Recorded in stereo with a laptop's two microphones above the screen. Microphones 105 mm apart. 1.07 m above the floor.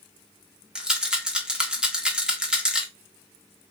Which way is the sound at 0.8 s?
5° right (ahead or behind).